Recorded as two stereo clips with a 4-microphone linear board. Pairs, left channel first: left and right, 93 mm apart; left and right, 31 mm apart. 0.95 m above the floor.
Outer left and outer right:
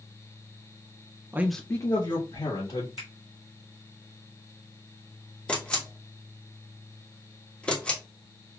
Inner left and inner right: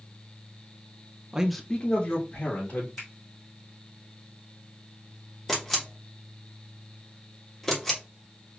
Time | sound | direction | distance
1.3 | a man speaking | 25° right (ahead or behind) | 0.5 m
3.0 | a finger snap | 70° left (ahead or behind) | 1.6 m
5.5 | a camera shutter | 10° left (ahead or behind) | 1.2 m